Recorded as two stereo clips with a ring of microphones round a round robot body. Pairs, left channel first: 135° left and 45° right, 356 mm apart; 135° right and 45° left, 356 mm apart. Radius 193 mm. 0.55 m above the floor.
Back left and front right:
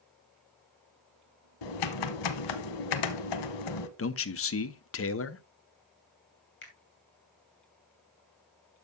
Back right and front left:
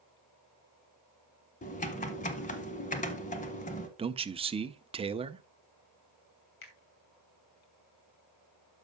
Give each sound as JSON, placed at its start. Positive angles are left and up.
{"t": 1.6, "sound": "typing on a keyboard", "azimuth_deg": 155, "distance_m": 0.8}
{"t": 4.0, "sound": "a man speaking", "azimuth_deg": 110, "distance_m": 0.7}
{"t": 6.6, "sound": "a finger snap", "azimuth_deg": -165, "distance_m": 2.5}